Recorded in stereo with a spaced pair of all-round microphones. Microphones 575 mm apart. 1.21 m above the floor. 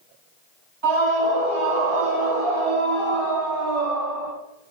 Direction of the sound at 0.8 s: 45° right (ahead or behind).